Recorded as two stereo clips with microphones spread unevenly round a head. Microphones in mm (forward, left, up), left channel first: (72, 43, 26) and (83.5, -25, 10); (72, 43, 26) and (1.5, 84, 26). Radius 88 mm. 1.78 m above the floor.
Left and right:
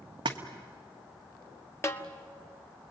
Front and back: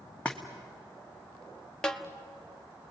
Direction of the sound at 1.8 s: 50° left.